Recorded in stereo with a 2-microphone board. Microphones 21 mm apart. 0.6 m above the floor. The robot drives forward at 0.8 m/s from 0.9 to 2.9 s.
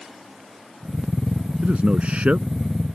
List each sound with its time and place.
1.6 s a man speaking: 65° right (ahead or behind); by 2.5 s 70° right (ahead or behind)